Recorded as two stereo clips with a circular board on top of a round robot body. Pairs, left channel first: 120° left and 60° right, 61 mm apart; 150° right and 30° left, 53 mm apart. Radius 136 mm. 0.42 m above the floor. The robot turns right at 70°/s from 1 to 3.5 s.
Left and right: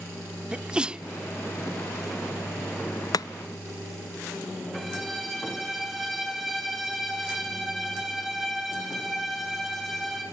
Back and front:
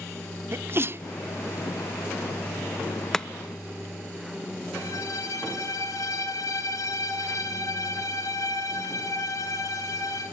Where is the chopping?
130° left, 0.6 m; by 3.3 s 135° left, 0.6 m.